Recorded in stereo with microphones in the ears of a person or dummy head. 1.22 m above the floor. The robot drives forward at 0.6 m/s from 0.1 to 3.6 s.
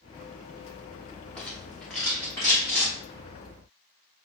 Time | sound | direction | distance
1.4 | a rattle | 5° left (ahead or behind) | 0.9 m